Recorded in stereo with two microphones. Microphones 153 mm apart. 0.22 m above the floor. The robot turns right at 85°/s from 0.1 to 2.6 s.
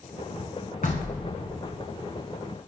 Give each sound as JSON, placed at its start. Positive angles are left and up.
{"t": 0.8, "sound": "knocking", "azimuth_deg": 80, "distance_m": 1.3}